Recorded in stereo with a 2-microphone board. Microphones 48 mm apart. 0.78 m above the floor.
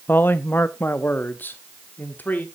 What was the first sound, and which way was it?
A man speaking, 40° left (ahead or behind).